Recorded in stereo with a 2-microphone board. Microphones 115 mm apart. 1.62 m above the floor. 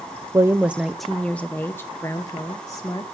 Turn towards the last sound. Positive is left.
turn(degrees=30)  # may be behind; listen again after turning